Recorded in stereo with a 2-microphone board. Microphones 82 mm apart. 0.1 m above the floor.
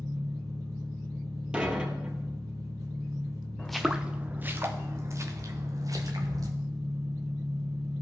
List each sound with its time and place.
0.0 s an engine running: 40° right (ahead or behind), 2 m
1.5 s dishes clattering: 10° right (ahead or behind), 1.4 m
3.6 s footsteps: 10° left (ahead or behind), 0.7 m; by 6.5 s 50° right (ahead or behind), 2 m